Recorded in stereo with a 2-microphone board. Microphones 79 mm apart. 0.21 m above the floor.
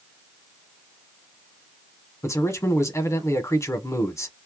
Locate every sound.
2.2 s a man speaking: 40° left (ahead or behind), 1.4 m